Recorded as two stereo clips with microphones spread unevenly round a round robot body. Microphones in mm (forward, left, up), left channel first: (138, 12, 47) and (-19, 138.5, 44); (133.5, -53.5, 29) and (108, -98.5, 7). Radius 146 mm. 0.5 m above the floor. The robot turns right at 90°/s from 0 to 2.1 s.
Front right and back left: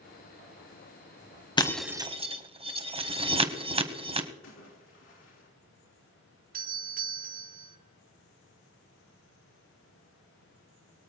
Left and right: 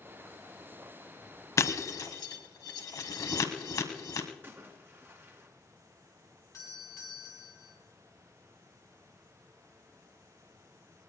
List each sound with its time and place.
1.6 s breaking glass: 30° left, 1.6 m; by 4.3 s 75° left, 1.6 m
4.4 s a splash: 75° right, 4 m
6.5 s a doorbell: 115° left, 3 m